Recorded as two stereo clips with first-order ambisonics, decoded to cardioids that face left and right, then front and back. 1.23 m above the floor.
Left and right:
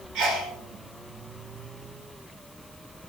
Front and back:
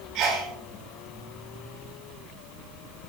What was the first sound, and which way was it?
A sneeze, 140° right.